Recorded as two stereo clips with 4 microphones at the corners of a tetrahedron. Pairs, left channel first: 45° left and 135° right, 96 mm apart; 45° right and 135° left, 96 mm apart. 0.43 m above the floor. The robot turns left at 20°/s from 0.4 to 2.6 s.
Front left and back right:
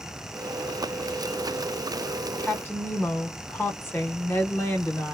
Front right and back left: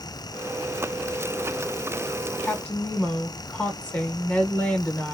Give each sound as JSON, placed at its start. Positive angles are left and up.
{"t": 2.4, "sound": "a woman speaking", "azimuth_deg": 10, "distance_m": 0.9}